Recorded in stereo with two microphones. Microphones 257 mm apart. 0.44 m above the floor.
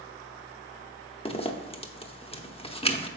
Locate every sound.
1.2 s a zipper: 25° left (ahead or behind), 0.7 m